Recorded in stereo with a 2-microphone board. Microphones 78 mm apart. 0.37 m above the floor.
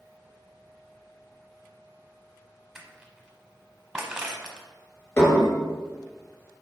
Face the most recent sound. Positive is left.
turn(degrees=40)  # may be behind; listen again after turning